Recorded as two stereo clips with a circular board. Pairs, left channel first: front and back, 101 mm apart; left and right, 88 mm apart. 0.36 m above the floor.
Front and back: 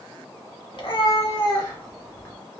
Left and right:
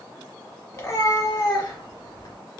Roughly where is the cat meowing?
Ahead left.